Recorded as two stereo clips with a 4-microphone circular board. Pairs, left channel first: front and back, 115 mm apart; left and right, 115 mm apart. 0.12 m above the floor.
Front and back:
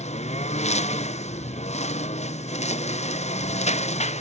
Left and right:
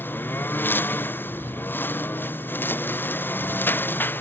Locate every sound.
0.0 s a lawn mower: 15° left